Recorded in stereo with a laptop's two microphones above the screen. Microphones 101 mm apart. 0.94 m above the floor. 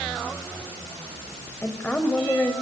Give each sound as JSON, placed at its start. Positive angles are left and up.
{"t": 1.6, "sound": "a woman speaking", "side_deg": 15, "distance_m": 5.5}